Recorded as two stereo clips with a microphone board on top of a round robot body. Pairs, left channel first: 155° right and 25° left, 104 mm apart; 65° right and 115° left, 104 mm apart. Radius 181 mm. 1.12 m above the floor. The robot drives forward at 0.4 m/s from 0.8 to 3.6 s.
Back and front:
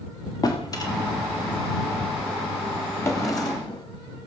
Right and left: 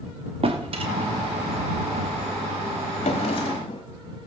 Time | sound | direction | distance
0.4 | a drawer | 145° left | 1.3 m
3.0 | a drawer | 90° right | 0.8 m